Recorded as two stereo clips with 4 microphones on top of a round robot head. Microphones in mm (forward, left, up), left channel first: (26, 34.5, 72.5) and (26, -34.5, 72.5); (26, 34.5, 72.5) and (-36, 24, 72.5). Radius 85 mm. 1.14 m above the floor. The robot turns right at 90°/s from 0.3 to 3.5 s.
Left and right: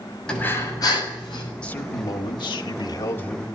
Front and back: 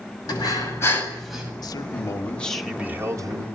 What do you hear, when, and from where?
0.3 s breathing: 10° left, 6.5 m; by 1.5 s 120° left, 6.5 m
1.6 s a man speaking: 15° left, 2.5 m; by 3.5 s straight behind, 2.5 m